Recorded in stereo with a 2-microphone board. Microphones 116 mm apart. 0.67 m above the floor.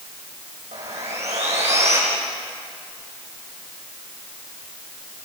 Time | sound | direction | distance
0.7 | sawing | 75° right (ahead or behind) | 9 m